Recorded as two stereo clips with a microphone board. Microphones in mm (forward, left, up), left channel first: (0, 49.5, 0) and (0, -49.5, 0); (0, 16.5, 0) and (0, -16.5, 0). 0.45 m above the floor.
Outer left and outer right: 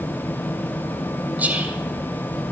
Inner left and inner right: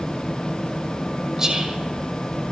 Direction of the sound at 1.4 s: 15° right (ahead or behind).